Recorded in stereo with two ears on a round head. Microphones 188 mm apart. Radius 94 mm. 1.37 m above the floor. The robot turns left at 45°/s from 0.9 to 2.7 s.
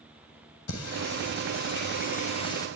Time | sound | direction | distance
0.7 | singing | 85° left | 6.5 m